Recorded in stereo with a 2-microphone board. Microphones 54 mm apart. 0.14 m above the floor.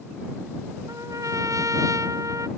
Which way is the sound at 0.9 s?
85° right.